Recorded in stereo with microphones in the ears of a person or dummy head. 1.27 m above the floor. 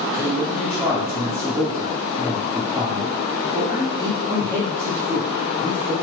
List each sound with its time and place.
0.1 s a man speaking: 25° right (ahead or behind), 1.6 m